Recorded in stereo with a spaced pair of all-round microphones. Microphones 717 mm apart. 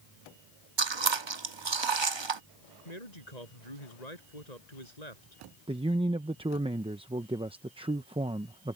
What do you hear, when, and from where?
0.8 s chewing: 35° right (ahead or behind)
2.9 s a man speaking: 60° left (ahead or behind)
5.7 s a man speaking: 10° right (ahead or behind)